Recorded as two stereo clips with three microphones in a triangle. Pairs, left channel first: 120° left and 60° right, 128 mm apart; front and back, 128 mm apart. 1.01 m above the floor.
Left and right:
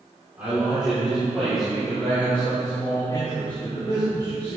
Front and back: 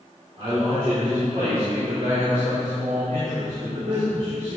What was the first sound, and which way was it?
A man speaking, 140° right.